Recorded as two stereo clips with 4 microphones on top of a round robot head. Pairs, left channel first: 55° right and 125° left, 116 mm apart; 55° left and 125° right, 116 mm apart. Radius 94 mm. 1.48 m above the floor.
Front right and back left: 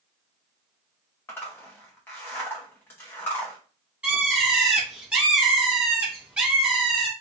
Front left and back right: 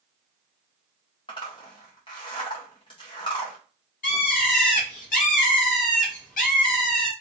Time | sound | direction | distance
1.3 | a zipper | 15° left | 0.5 m
4.0 | a bird | 45° left | 0.6 m